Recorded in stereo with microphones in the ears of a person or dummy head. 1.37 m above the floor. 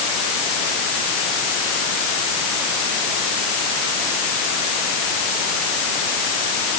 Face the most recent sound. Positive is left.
No sound to turn to.